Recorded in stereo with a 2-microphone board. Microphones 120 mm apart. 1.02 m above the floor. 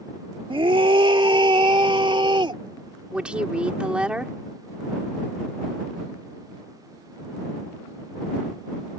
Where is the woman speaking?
10° right (ahead or behind).